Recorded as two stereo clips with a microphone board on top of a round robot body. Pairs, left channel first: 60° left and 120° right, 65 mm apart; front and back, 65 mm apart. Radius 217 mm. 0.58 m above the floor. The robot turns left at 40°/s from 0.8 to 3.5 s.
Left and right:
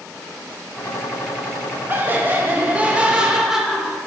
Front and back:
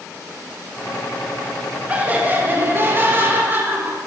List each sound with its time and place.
1.9 s laughter: 135° right, 0.6 m; by 4.0 s 160° left, 0.6 m